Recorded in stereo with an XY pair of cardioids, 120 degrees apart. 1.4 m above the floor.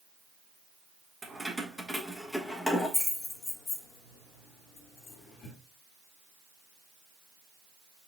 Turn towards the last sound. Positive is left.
turn(degrees=60)